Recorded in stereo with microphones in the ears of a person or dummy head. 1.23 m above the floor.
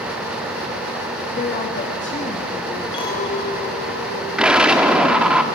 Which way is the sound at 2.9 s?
25° left (ahead or behind).